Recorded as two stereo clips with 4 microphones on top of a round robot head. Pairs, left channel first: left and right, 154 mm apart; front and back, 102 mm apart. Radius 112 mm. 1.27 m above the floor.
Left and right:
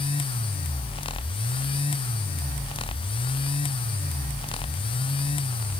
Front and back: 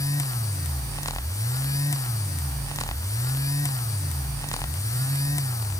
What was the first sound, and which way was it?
Only background noise.